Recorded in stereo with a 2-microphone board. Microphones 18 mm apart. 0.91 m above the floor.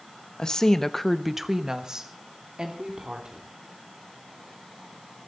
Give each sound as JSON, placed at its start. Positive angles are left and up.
{"t": 0.4, "sound": "a woman speaking", "side_deg": 55, "distance_m": 1.1}